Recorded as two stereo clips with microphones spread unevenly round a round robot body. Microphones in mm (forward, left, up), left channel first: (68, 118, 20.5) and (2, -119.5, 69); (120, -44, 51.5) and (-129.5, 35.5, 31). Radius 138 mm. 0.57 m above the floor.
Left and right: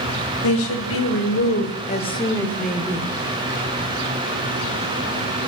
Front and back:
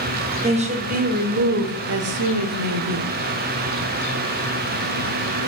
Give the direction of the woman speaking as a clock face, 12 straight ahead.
9 o'clock.